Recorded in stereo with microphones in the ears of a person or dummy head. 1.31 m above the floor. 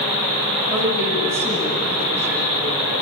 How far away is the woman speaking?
About 8.5 m.